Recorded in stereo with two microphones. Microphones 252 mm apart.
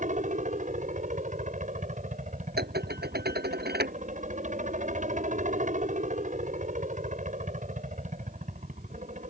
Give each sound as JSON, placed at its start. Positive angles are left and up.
{"t": 0.0, "sound": "a helicopter", "side_deg": -30}
{"t": 2.6, "sound": "dishes clattering", "side_deg": -40}